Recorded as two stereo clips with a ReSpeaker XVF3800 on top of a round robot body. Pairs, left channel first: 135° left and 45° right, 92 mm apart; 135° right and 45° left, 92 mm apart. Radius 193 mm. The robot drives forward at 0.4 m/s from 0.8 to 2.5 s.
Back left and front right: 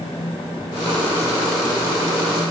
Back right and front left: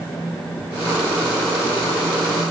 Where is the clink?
No clink in this recording.